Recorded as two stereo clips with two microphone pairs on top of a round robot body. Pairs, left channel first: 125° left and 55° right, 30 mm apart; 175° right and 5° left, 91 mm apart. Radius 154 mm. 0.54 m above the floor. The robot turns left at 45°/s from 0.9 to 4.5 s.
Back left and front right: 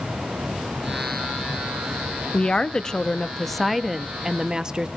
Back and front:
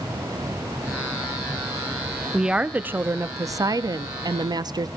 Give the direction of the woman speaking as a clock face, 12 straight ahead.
9 o'clock.